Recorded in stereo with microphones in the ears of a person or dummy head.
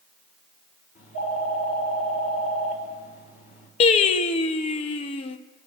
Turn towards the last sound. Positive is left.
turn(degrees=35)  # may be behind; listen again after turning